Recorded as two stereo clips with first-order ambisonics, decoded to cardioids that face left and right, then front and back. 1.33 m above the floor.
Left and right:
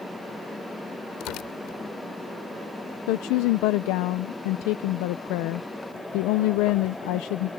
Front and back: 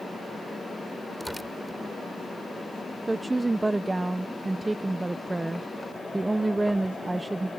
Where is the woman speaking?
95° left.